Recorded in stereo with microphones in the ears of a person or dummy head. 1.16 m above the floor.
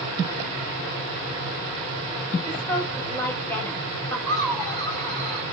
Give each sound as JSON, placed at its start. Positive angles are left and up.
{"t": 2.4, "sound": "a woman speaking", "side_deg": 5, "distance_m": 7.0}
{"t": 4.3, "sound": "laughter", "side_deg": 5, "distance_m": 7.5}